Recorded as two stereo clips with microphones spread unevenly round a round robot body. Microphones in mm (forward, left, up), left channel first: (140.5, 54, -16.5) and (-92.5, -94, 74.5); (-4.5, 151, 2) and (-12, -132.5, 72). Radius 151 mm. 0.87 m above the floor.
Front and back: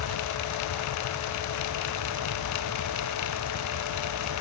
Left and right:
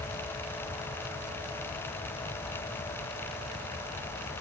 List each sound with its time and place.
Only background noise.